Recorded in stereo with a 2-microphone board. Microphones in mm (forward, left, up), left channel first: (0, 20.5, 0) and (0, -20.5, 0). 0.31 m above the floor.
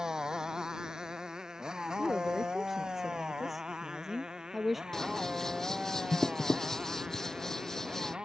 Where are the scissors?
10° left (ahead or behind).